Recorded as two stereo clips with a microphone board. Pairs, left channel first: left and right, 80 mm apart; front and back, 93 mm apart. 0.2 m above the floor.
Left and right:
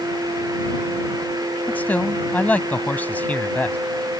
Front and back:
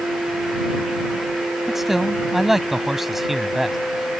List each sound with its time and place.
1.7 s a man speaking: 100° left